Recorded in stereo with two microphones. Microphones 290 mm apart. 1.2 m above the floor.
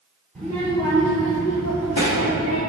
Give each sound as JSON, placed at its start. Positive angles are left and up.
{"t": 0.3, "sound": "a child speaking", "side_deg": 5, "distance_m": 2.5}